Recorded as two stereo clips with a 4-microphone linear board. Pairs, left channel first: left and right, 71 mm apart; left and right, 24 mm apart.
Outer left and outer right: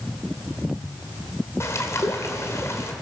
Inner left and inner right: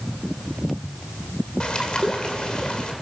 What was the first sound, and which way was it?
A bird, 40° left (ahead or behind).